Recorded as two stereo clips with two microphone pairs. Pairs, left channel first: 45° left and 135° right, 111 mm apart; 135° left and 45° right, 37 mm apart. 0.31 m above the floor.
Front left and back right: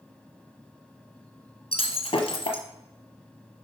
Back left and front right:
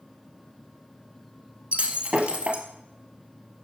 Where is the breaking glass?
10° left, 1.3 m.